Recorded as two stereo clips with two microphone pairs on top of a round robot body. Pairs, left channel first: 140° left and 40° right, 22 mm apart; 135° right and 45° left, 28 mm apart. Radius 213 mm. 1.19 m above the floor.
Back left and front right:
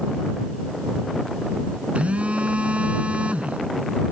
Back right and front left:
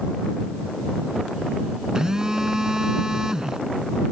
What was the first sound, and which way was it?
A phone buzzing, 25° right.